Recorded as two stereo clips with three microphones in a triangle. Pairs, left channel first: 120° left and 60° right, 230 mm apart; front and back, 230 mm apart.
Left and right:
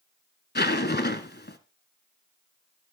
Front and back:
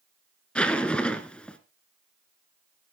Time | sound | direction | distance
0.6 | a zipper | 85° left | 1.1 m